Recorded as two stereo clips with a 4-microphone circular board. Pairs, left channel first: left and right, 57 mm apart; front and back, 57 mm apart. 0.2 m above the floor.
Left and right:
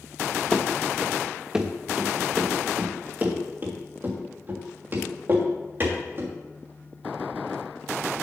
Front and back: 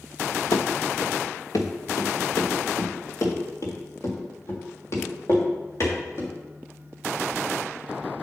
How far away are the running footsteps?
About 0.9 m.